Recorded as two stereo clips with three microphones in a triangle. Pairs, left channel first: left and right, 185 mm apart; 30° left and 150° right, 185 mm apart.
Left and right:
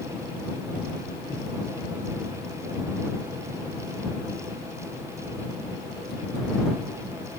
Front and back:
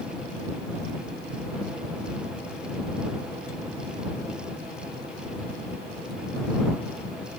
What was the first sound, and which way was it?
Only background noise.